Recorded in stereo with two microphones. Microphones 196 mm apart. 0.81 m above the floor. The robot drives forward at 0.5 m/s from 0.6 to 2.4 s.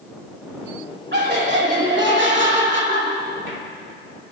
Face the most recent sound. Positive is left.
turn(degrees=-70)  # may be behind; listen again after turning